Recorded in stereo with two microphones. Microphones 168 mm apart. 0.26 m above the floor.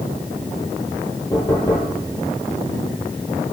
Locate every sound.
1.3 s knocking: 20° left (ahead or behind), 5 m